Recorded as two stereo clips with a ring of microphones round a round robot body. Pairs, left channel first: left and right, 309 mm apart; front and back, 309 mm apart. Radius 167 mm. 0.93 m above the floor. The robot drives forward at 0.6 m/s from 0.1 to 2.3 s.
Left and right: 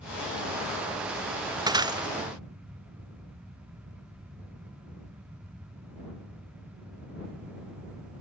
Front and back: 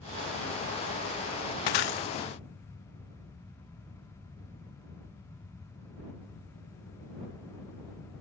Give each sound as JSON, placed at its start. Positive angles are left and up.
{"t": 1.7, "sound": "breaking glass", "azimuth_deg": -15}